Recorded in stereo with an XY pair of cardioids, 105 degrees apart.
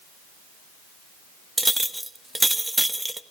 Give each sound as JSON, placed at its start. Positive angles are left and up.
{"t": 1.6, "sound": "a clink", "azimuth_deg": -10, "distance_m": 1.0}